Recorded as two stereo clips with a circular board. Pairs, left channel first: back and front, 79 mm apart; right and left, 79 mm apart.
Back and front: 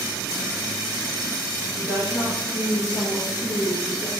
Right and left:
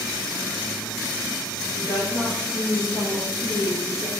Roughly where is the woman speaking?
Behind.